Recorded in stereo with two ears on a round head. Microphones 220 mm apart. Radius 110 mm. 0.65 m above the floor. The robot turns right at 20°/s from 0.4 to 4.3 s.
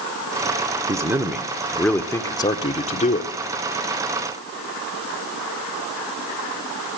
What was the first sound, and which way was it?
A man speaking, 15° right.